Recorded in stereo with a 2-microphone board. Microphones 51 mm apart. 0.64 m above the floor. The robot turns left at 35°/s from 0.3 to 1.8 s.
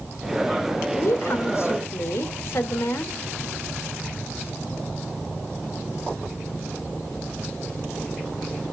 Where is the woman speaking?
70° left (ahead or behind), 2 m; by 3.1 s 55° left (ahead or behind), 2 m.